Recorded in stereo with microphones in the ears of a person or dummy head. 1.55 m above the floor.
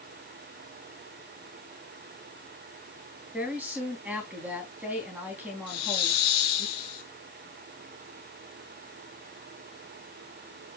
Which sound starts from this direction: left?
A hiss, at 5.7 s.